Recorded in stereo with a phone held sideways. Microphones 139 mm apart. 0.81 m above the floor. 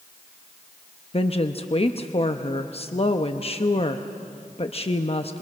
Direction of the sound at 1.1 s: 45° left (ahead or behind).